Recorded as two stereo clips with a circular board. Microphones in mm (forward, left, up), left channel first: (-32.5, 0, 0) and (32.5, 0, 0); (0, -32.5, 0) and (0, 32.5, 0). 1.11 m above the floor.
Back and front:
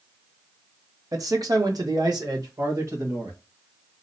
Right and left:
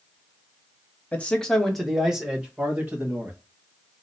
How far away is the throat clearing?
No throat clearing in this recording.